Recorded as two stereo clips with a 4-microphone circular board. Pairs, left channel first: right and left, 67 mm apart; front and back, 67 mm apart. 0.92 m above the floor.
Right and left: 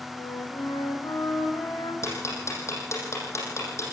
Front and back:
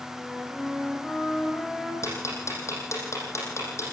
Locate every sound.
0.1 s a flute: 80° right, 5.5 m
2.0 s ticking: 45° right, 7 m